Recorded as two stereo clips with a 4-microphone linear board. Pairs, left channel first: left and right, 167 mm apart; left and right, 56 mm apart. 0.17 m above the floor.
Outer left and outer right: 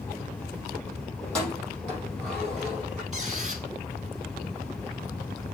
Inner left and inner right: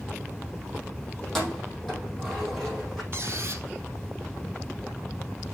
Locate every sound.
1.2 s keys jangling: 5° left (ahead or behind), 4 m
3.1 s a squeak: 45° right (ahead or behind), 1.6 m